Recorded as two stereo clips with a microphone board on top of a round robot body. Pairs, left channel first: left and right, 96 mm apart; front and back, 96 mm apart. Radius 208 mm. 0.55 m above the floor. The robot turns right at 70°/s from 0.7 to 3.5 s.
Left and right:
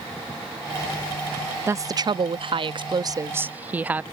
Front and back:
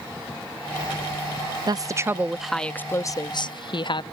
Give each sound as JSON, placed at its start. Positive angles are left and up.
{"t": 1.7, "sound": "a woman speaking", "azimuth_deg": -150}